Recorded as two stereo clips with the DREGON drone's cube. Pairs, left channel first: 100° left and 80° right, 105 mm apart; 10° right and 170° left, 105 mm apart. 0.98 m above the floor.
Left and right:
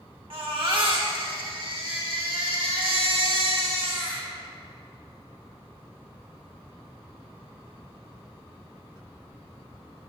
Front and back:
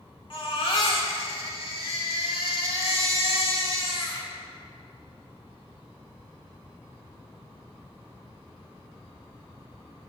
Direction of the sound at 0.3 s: 45° right.